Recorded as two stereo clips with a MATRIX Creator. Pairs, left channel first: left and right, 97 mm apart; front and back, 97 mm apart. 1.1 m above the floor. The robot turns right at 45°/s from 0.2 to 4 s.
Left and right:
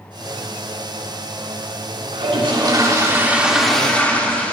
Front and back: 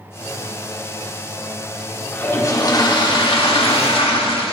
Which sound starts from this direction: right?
A toilet flushing, at 2.1 s.